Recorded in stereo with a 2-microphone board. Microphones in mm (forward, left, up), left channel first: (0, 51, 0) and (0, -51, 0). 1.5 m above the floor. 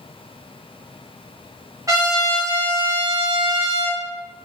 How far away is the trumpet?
About 0.7 m.